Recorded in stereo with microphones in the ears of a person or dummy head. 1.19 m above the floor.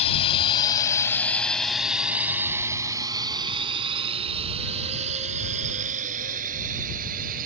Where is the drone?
35° left (ahead or behind); by 7.5 s 45° right (ahead or behind).